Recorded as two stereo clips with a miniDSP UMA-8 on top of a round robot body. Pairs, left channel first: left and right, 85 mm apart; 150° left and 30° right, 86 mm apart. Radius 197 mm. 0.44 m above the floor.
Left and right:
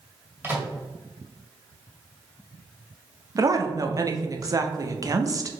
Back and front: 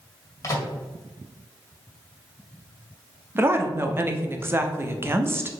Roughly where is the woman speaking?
Right.